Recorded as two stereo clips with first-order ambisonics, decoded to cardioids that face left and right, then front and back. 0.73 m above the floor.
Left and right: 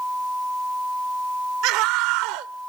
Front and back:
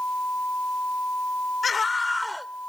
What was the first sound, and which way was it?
A scream, 70° right.